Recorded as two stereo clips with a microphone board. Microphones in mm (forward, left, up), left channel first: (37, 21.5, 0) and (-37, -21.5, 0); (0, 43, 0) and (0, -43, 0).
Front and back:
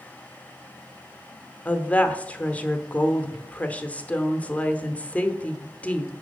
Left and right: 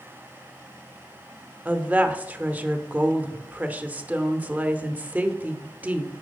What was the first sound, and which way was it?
A woman speaking, 30° right.